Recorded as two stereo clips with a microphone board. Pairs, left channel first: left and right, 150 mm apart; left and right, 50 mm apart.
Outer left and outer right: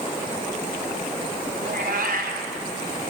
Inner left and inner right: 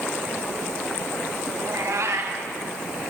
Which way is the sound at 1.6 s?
75° right (ahead or behind).